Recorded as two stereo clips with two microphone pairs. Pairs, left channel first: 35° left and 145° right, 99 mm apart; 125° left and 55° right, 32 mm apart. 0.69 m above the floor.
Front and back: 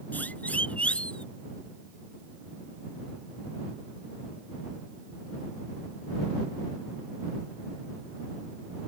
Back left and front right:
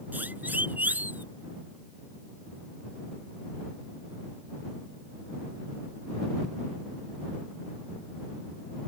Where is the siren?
40° right; by 1.2 s 50° right.